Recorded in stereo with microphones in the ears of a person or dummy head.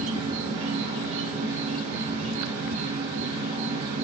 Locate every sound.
0.0 s an insect: 35° right (ahead or behind), 1.1 m